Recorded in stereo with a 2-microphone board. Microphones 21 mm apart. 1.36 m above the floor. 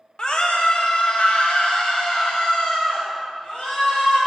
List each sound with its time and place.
0.2 s a scream: 45° left (ahead or behind), 1.1 m; by 4.2 s 75° left (ahead or behind), 3 m